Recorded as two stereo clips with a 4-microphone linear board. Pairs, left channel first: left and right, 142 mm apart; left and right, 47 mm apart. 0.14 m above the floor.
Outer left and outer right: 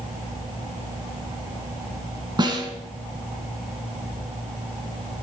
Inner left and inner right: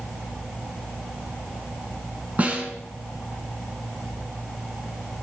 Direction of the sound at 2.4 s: 35° right (ahead or behind).